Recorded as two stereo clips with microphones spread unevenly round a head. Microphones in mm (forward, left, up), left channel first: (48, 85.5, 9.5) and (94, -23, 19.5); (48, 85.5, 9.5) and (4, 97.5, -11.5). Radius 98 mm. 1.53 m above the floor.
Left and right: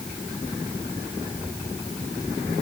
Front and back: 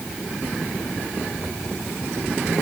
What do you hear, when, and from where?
Only background noise.